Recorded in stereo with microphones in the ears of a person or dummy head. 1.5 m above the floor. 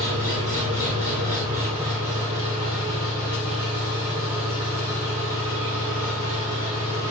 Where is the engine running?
35° right (ahead or behind), 2.5 m.